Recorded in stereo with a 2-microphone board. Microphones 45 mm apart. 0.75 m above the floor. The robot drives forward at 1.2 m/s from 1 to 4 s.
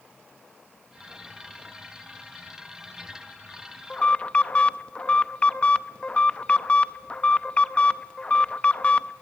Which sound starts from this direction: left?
An alarm, at 3.9 s.